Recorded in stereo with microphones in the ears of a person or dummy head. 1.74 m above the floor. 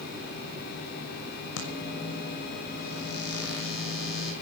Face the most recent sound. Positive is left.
turn(degrees=80)